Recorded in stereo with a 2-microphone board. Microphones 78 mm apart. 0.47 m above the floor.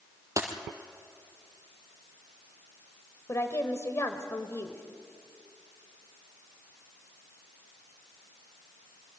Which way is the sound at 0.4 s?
40° right (ahead or behind).